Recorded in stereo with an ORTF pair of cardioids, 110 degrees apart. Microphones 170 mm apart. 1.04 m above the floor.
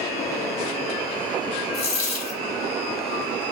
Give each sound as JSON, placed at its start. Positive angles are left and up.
{"t": 1.7, "sound": "a dropped coin", "azimuth_deg": 40, "distance_m": 1.3}